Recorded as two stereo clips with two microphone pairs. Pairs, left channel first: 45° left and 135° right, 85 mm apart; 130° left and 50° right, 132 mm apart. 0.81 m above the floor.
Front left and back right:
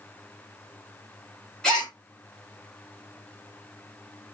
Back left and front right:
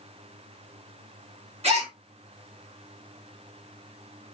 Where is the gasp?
35° right, 1.3 m.